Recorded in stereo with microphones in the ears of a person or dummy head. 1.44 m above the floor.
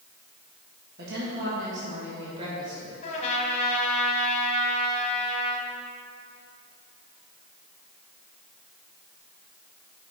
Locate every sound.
1.0 s a woman speaking: 60° right (ahead or behind), 1.5 m; by 2.9 s 25° right (ahead or behind), 2.5 m
3.0 s a trumpet: 40° left (ahead or behind), 1.1 m